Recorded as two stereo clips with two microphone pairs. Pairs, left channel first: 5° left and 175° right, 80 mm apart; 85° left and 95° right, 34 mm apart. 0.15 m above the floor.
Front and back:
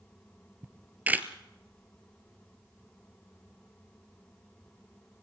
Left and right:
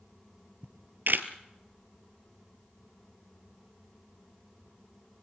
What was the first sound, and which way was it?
A camera shutter, 105° right.